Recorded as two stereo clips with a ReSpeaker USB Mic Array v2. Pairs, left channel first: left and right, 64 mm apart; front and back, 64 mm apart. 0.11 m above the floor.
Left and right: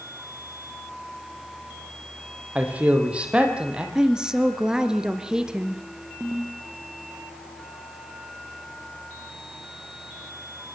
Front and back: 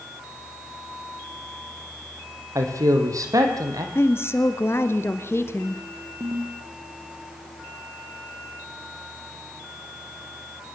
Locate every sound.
2.5 s a man speaking: 155° right, 4 m; by 3.9 s 165° right, 4 m
4.0 s a woman speaking: 15° right, 1.7 m
6.2 s a ringtone: 150° right, 4 m